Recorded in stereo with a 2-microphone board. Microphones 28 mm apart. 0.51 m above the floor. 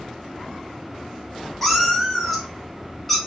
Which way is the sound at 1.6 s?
5° left (ahead or behind).